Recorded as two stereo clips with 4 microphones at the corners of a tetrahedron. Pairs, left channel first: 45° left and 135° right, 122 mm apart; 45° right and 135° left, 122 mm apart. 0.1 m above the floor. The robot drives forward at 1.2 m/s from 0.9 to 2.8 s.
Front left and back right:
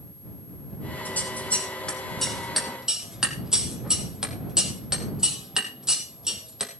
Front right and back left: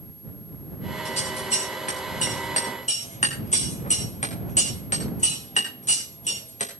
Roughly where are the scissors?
Ahead right.